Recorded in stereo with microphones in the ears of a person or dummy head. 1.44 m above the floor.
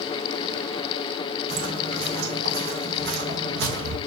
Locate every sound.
1.5 s footsteps: 50° right (ahead or behind), 4 m; by 4.0 s 60° right (ahead or behind), 3.5 m